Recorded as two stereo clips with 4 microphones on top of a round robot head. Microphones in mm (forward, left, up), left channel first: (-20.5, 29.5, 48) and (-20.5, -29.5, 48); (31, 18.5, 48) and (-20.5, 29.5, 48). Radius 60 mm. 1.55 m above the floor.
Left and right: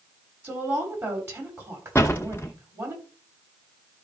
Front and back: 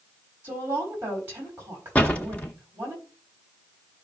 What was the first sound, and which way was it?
A woman speaking, 130° right.